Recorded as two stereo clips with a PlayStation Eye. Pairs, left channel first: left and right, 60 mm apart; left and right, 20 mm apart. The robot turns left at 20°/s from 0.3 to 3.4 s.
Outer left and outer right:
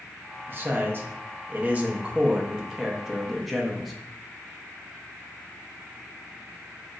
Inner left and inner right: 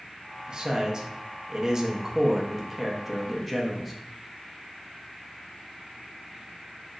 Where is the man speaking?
120° right, 0.7 m; by 3.9 s straight behind, 0.7 m.